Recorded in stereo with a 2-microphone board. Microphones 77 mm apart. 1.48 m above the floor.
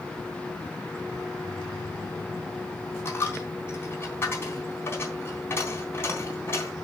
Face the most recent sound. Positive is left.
turn(degrees=30)  # may be behind; listen again after turning